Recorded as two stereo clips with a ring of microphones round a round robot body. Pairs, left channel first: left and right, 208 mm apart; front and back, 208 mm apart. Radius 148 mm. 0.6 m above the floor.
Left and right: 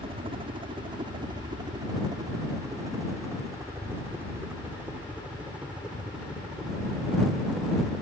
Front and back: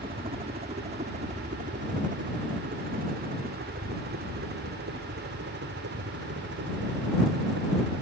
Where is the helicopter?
135° right; by 8.0 s straight behind.